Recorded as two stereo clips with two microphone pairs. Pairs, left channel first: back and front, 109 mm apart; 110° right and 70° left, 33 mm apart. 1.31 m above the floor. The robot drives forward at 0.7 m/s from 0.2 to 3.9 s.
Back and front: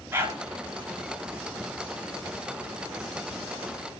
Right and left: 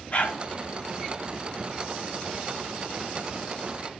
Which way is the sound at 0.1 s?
70° right.